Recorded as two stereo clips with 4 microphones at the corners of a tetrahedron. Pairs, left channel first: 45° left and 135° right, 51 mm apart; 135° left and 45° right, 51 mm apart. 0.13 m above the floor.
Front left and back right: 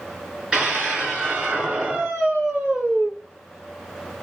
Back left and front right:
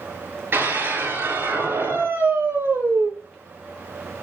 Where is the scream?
70° right, 2 m.